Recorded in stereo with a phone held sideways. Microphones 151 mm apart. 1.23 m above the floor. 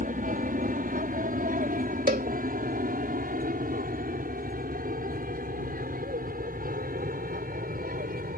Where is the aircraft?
65° right (ahead or behind); by 8.4 s 70° right (ahead or behind).